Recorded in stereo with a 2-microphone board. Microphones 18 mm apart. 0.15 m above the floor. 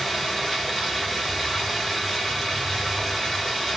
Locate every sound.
0.0 s running water: centre (ahead or behind), 2.5 m